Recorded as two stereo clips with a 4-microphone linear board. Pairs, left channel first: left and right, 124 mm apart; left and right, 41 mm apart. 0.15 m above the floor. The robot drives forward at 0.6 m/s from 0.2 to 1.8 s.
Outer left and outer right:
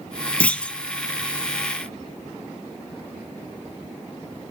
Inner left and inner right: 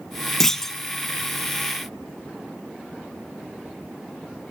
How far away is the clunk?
About 0.6 m.